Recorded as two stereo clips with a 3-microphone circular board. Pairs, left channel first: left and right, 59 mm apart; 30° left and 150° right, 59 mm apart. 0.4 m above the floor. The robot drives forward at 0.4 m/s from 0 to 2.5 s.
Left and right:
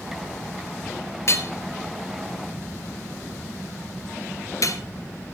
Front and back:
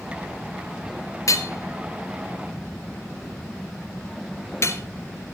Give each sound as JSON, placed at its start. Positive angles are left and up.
{"t": 1.3, "sound": "hammering", "azimuth_deg": 50, "distance_m": 1.7}